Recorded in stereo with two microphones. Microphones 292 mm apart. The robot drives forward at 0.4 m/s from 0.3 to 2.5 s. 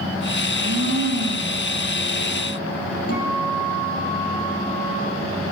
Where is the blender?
60° right (ahead or behind), 3.5 m; by 1.7 s 55° right (ahead or behind), 4 m.